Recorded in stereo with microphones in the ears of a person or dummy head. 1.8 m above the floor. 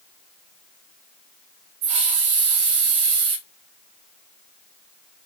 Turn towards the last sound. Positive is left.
turn(degrees=-60)  # may be behind; listen again after turning